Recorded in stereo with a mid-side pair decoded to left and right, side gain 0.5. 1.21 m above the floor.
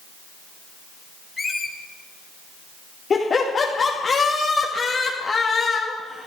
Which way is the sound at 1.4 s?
25° left.